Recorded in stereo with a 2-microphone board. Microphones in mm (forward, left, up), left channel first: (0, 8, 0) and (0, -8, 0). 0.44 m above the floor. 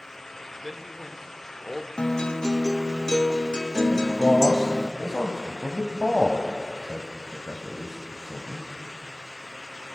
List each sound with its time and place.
0.6 s a man speaking: 15° right (ahead or behind), 1.5 m
2.0 s a guitar: 70° left (ahead or behind), 0.6 m
3.9 s a man speaking: 20° left (ahead or behind), 2 m